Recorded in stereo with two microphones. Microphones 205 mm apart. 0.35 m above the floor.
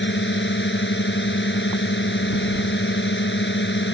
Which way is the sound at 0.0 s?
70° left (ahead or behind).